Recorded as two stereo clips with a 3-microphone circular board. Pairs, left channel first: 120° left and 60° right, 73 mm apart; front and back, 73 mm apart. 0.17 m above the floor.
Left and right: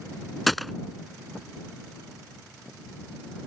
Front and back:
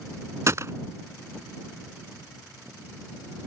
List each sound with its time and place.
0.5 s a gunshot: 150° right